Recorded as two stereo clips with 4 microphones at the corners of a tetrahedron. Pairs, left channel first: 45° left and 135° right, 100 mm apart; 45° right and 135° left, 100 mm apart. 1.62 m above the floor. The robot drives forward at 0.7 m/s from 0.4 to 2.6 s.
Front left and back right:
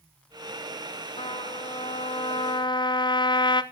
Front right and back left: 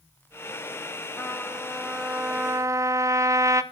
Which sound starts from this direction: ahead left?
A trumpet, at 1.2 s.